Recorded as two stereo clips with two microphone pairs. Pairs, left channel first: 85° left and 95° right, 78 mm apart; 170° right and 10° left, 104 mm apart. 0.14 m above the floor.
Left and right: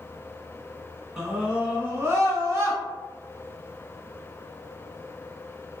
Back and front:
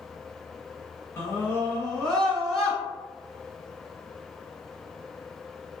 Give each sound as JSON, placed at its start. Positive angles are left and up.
{"t": 1.2, "sound": "a scream", "azimuth_deg": -175, "distance_m": 1.1}